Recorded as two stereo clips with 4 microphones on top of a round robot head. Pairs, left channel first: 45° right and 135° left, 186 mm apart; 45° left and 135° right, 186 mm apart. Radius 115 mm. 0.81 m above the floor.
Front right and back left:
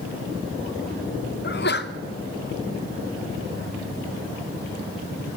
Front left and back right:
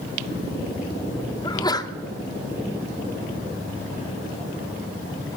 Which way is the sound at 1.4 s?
25° right.